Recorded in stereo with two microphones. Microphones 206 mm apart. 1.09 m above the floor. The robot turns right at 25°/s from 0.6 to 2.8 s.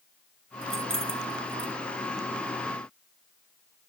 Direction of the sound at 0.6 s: 85° right.